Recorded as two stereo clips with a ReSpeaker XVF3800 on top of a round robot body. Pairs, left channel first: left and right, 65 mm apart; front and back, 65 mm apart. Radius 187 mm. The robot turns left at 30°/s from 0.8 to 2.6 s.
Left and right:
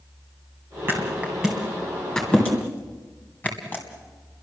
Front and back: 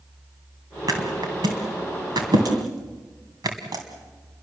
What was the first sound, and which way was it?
A thud, 150° right.